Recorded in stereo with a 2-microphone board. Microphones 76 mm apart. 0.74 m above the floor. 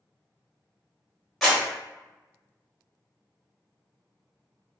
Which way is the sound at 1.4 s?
Centre (ahead or behind).